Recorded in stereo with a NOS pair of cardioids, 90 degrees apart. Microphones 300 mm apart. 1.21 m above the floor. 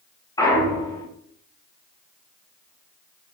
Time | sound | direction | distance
0.4 | a clunk | 10° left | 0.8 m